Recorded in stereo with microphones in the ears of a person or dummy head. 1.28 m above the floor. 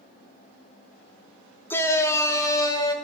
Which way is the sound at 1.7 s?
15° left (ahead or behind).